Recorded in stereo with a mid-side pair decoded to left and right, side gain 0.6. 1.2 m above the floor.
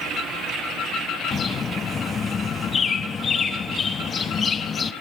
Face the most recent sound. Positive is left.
turn(degrees=35)